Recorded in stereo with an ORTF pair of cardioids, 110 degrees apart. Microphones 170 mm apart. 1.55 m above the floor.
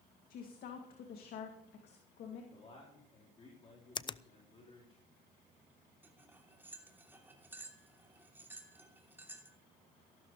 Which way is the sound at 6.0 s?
10° right.